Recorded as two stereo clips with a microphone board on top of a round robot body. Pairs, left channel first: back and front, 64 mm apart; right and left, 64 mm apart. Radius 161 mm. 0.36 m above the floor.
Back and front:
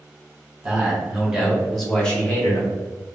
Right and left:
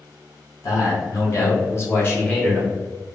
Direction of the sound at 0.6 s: 70° right.